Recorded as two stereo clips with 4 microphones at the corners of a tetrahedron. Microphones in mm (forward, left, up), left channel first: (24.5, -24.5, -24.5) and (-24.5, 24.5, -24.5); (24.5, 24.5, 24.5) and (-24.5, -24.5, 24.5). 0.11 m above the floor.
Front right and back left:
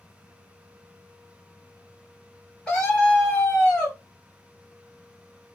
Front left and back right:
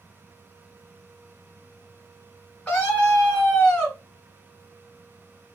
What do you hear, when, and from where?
2.7 s a scream: straight ahead, 1.3 m